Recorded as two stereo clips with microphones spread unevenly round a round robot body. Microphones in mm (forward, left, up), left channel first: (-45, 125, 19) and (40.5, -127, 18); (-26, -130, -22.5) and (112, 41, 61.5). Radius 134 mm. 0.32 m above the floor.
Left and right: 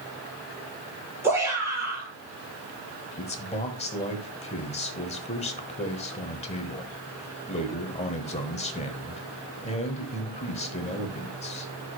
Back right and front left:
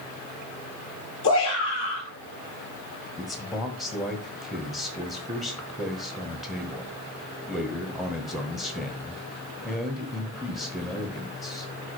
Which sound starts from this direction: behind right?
A shout, at 1.2 s.